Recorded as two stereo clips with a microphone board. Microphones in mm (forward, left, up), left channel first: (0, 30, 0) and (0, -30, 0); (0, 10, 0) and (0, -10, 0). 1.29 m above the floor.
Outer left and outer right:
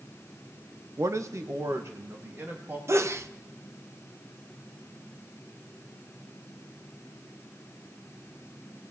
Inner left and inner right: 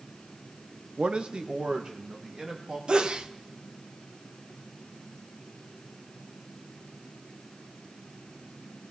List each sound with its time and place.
1.0 s a man speaking: 60° right (ahead or behind), 0.8 m; by 2.8 s 40° right (ahead or behind), 2.5 m
2.9 s a sneeze: 50° right (ahead or behind), 0.8 m